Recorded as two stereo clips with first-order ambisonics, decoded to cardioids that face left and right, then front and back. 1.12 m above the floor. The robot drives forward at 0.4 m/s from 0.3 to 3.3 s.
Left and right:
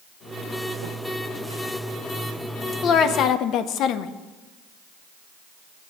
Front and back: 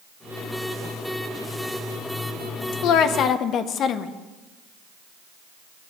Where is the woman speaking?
35° left, 0.6 m; by 4.1 s 50° left, 0.5 m.